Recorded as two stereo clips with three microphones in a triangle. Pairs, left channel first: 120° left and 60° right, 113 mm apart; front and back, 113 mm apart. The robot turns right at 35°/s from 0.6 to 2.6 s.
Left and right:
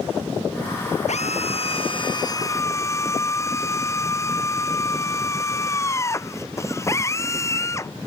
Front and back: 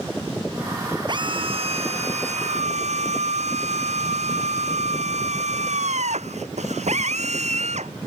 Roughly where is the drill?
Behind left.